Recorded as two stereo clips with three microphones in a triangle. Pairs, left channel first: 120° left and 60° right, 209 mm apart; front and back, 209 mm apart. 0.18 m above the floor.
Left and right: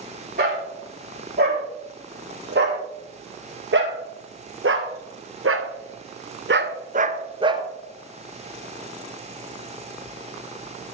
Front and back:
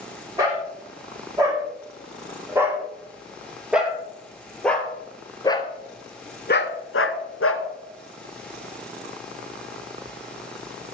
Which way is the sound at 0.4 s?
105° right.